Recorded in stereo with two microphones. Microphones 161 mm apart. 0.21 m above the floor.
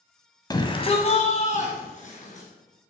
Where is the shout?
25° left (ahead or behind), 1.2 m; by 2.5 s 50° left (ahead or behind), 3 m.